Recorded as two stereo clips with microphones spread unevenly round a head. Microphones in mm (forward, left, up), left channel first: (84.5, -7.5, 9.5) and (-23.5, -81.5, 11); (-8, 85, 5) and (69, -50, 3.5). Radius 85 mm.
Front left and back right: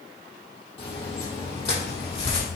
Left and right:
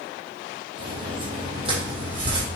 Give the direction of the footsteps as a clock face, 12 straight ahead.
12 o'clock.